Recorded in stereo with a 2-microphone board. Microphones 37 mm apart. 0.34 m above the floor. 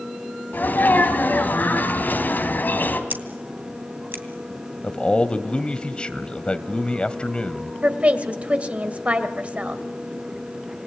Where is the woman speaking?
35° right (ahead or behind), 1.9 m.